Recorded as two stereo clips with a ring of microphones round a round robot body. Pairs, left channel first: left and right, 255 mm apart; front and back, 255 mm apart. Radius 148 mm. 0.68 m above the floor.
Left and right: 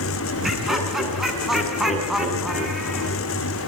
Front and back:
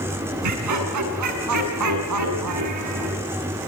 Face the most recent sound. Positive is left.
turn(degrees=180)